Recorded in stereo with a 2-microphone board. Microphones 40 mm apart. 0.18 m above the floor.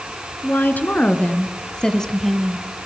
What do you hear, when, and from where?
0.4 s a woman speaking: 50° left (ahead or behind), 2.5 m; by 2.6 s 10° right (ahead or behind), 1.4 m